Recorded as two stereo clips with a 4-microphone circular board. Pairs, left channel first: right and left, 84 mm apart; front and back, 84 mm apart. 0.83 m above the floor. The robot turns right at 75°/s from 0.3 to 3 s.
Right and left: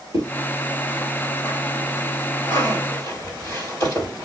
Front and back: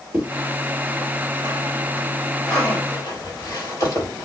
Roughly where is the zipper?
Behind left.